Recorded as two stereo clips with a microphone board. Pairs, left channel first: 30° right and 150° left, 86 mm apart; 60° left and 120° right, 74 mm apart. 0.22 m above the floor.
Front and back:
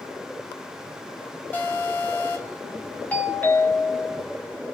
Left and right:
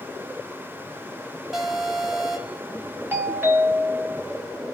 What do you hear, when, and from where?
1.5 s an alarm: 30° right, 1.8 m
3.1 s a doorbell: 90° right, 1.8 m